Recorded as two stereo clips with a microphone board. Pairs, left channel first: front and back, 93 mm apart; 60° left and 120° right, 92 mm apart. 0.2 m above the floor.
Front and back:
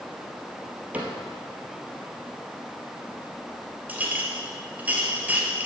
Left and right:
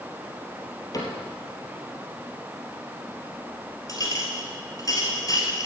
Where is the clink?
105° left, 2.5 m.